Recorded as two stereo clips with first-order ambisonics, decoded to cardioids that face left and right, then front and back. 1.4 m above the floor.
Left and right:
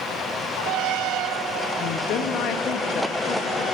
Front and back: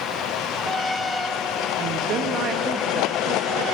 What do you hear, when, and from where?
1.8 s a woman speaking: 130° left, 0.6 m